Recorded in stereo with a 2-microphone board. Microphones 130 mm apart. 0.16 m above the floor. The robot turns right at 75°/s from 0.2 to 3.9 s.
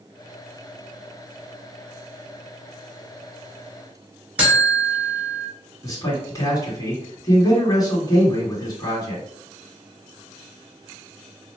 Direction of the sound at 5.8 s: 30° left (ahead or behind).